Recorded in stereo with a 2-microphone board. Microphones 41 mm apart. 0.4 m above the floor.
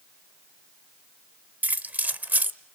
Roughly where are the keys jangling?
Right.